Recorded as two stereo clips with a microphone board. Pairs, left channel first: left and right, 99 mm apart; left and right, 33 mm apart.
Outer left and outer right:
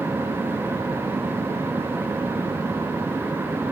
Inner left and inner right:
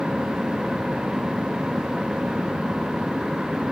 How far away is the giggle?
I don't hear a giggle.